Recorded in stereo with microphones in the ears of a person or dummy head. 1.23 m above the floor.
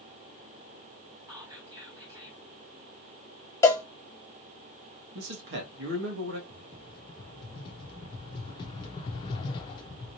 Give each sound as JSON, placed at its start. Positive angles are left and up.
{"t": 1.3, "sound": "whispering", "side_deg": -20, "distance_m": 2.5}
{"t": 3.6, "sound": "a cowbell", "side_deg": 20, "distance_m": 0.6}
{"t": 5.2, "sound": "a man speaking", "side_deg": -60, "distance_m": 1.7}
{"t": 6.5, "sound": "a rattle", "side_deg": 30, "distance_m": 0.8}